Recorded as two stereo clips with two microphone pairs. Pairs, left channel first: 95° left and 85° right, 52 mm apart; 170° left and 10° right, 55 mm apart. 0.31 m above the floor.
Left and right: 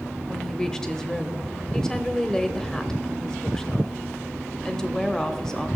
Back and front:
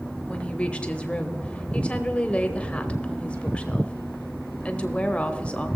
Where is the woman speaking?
150° left, 0.9 m.